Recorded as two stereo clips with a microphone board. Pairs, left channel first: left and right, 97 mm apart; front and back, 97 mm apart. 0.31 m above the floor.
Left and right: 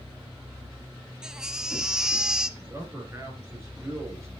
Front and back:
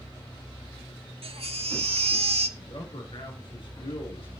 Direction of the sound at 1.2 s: 175° right.